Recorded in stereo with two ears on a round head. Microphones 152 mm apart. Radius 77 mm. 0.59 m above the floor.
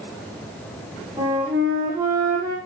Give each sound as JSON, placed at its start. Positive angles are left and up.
{"t": 1.2, "sound": "a flute", "side_deg": -20, "distance_m": 6.0}